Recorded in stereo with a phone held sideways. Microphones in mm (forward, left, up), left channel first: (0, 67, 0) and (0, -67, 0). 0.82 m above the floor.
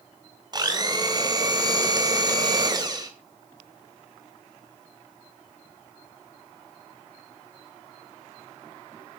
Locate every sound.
0.5 s a blender: 30° right (ahead or behind), 3 m